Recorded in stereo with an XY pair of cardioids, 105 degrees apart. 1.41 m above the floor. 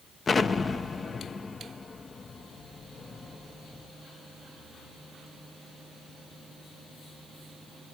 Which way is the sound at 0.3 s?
35° left.